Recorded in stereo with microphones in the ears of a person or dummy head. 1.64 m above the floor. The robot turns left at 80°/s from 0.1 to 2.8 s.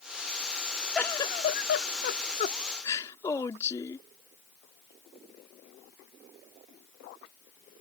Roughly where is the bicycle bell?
No bicycle bell in this recording.